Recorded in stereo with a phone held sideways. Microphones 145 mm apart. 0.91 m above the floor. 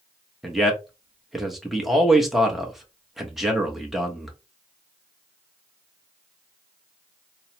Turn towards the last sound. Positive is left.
turn(degrees=0)  # may be behind; listen again after turning